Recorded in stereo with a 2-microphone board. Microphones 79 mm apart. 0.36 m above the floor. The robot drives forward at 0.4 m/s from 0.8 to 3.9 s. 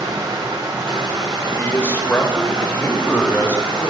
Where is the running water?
65° right (ahead or behind), 2.5 m; by 3.9 s 80° right, 2.5 m.